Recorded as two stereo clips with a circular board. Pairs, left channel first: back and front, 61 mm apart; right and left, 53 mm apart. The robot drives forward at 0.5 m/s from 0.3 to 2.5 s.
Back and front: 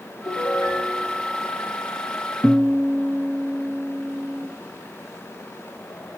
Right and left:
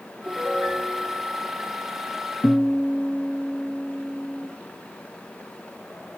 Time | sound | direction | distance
0.2 | a piano | 170° left | 3 m
2.4 | a guitar | 90° right | 1.7 m